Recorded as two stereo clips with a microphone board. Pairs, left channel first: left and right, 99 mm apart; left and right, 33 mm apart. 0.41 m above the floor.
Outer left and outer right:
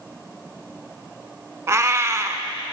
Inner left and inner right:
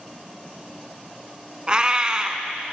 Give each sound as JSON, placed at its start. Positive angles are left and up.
{"t": 1.7, "sound": "a cat meowing", "side_deg": -30, "distance_m": 0.6}